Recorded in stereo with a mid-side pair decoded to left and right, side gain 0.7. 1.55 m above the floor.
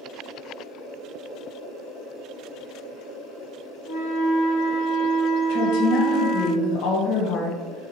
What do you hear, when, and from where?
3.9 s a flute: 65° left, 1.3 m
5.5 s a woman speaking: 70° left, 1.6 m